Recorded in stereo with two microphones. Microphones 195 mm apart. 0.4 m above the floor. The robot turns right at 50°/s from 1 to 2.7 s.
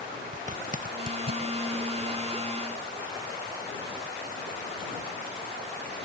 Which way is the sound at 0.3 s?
40° right (ahead or behind).